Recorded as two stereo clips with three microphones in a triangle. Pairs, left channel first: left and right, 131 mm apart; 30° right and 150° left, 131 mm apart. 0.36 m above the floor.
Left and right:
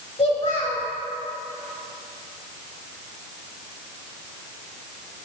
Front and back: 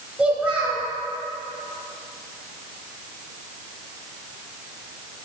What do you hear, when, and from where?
0.2 s a child speaking: 70° left, 1.4 m